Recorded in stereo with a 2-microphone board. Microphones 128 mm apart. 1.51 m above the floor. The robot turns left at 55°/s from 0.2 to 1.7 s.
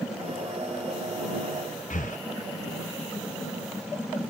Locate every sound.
1.9 s breathing: 80° left